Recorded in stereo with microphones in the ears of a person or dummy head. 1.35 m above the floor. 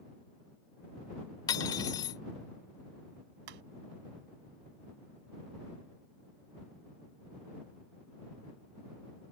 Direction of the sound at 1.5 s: 20° left (ahead or behind).